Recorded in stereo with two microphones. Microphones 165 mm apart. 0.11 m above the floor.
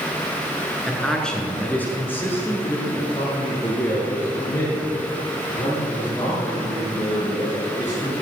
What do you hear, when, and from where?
0.9 s a man speaking: centre (ahead or behind), 1.5 m; by 8.1 s 20° left (ahead or behind), 5.5 m